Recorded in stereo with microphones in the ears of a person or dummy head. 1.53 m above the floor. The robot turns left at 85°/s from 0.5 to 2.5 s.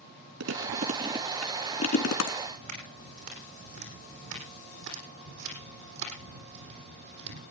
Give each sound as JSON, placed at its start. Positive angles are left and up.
{"t": 0.4, "sound": "chewing", "side_deg": -70, "distance_m": 2.5}
{"t": 2.4, "sound": "footsteps", "side_deg": -70, "distance_m": 6.0}